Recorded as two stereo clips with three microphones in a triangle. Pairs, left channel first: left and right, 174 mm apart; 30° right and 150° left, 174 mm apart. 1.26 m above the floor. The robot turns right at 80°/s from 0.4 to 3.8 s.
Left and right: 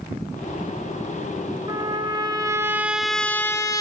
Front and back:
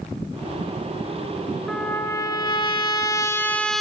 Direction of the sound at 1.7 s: 110° right.